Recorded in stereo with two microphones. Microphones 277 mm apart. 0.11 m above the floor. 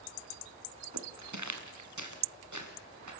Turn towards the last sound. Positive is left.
turn(degrees=-90)